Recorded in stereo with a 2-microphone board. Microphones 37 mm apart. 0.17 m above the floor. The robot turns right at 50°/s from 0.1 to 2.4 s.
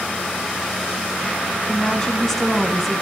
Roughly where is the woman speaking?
Behind left.